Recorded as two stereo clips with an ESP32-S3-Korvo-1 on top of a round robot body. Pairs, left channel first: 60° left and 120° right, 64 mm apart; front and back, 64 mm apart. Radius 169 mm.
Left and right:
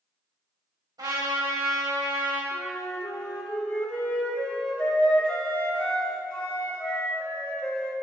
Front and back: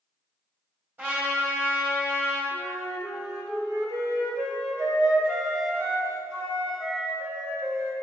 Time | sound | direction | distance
1.0 | a trumpet | 120° right | 3 m
2.5 | a flute | 130° left | 1.7 m